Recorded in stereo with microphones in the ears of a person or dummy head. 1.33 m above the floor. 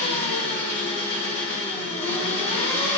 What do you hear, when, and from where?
0.0 s an engine running: 45° left (ahead or behind), 4 m